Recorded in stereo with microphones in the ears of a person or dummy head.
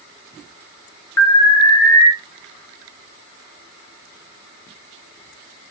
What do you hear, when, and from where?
1.2 s an alarm: 10° left (ahead or behind), 1.4 m